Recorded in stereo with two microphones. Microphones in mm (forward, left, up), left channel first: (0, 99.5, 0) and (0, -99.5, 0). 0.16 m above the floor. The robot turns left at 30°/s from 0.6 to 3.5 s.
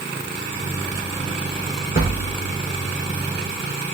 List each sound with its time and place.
1.9 s a thud: 45° left (ahead or behind), 2.5 m; by 2.3 s 55° left (ahead or behind), 2.5 m